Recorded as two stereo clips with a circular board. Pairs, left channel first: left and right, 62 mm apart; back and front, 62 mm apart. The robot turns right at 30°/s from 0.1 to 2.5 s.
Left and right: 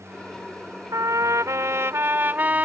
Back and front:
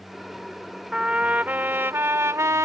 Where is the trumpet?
75° right; by 2.6 s 30° right.